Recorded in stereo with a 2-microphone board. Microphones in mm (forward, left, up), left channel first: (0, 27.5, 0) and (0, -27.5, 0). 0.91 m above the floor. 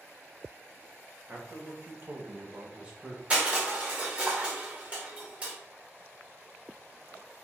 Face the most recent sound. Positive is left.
turn(degrees=-25)  # may be behind; listen again after turning